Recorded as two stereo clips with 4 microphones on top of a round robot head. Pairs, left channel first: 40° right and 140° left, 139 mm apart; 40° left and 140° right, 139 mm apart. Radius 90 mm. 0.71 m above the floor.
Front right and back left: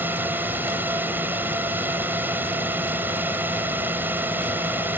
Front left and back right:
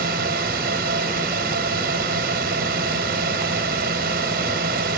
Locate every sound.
0.0 s a drone: 145° right